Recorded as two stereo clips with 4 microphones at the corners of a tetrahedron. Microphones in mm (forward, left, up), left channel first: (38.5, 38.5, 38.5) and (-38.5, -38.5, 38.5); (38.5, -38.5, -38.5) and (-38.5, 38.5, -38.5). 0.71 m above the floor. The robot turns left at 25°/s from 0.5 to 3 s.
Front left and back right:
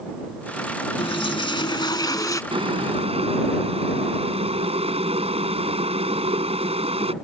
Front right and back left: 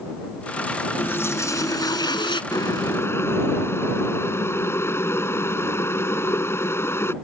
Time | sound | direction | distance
1.0 | a toilet flushing | 25° left | ?
2.5 | boiling | 100° right | ?